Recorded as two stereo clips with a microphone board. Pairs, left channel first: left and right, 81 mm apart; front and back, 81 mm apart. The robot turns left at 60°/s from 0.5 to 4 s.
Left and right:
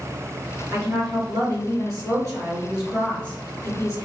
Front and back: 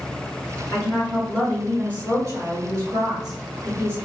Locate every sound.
0.7 s a woman speaking: 45° right, 1.8 m; by 4.1 s 120° left, 1.8 m